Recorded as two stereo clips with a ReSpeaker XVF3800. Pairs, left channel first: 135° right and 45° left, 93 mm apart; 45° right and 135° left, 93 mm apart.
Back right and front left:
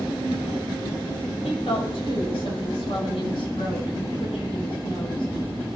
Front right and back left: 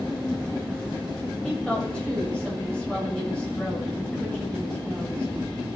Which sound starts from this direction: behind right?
A woman speaking, at 1.4 s.